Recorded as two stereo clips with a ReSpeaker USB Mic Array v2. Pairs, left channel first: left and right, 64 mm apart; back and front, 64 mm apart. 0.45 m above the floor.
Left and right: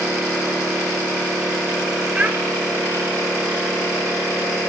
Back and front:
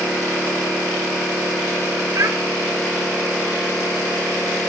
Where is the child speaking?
20° right, 0.9 m.